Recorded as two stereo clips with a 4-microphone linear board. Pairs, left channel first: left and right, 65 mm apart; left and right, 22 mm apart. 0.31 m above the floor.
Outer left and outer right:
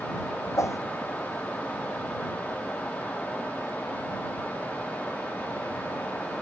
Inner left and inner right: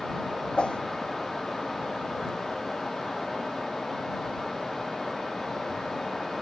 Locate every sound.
0.6 s a whoosh: 55° left (ahead or behind)